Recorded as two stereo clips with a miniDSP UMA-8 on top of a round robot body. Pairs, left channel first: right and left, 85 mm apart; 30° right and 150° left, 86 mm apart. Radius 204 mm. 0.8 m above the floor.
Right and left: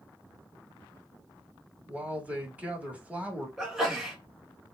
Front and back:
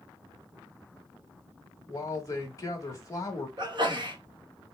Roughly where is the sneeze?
Behind.